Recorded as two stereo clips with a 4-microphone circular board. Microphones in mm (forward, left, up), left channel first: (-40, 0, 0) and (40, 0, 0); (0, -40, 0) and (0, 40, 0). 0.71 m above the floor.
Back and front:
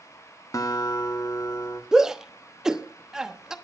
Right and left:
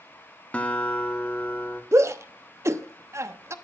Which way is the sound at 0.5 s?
160° right.